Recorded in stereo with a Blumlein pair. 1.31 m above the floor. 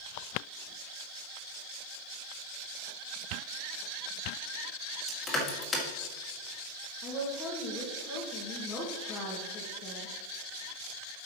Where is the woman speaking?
30° left, 2 m.